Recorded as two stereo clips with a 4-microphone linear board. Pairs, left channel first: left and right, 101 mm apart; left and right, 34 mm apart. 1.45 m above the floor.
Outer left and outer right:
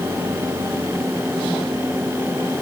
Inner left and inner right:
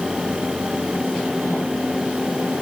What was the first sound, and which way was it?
Only background noise.